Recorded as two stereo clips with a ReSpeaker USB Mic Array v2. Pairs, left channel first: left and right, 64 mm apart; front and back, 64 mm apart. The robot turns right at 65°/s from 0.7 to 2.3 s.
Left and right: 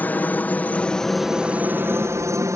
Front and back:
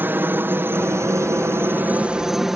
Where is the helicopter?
140° left; by 2.6 s 95° right.